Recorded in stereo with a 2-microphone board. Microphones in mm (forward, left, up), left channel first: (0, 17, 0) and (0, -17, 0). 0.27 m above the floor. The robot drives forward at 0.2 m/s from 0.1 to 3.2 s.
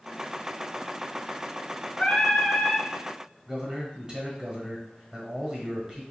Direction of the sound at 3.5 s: 25° right (ahead or behind).